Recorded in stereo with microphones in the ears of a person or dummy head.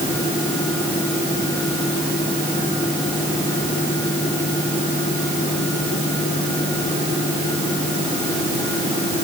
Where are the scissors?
No scissors in this recording.